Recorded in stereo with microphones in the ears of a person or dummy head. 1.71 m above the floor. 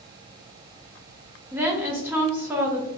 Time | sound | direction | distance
1.5 | a woman speaking | 5° right (ahead or behind) | 0.6 m